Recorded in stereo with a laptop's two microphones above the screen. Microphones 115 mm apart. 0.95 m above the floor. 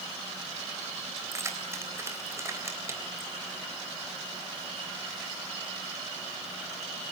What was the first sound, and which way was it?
Keys jangling, 20° right (ahead or behind).